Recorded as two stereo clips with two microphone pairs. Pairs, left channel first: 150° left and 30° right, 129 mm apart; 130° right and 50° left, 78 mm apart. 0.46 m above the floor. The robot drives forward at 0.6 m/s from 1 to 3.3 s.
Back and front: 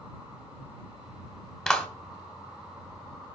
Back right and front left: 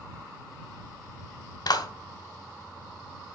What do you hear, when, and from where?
1.7 s a clap: 125° right, 1.7 m; by 1.9 s 130° right, 1.8 m